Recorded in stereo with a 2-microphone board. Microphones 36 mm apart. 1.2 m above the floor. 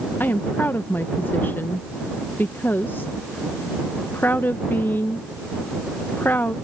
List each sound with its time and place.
0.2 s a woman speaking: 80° left